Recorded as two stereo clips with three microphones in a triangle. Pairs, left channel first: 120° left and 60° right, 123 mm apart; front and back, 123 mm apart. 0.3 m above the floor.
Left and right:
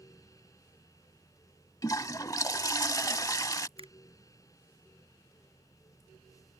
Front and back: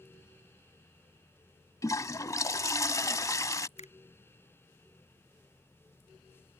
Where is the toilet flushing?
60° left.